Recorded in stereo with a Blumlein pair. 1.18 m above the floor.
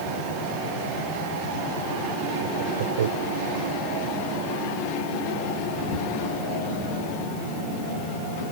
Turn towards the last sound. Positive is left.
turn(degrees=-60)